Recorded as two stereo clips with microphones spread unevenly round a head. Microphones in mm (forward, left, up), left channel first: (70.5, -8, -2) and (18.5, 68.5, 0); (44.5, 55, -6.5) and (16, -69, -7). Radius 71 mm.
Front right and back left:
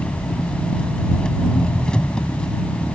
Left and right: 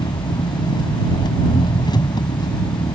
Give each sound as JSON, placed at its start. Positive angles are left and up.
{"t": 0.0, "sound": "an engine running", "azimuth_deg": 25}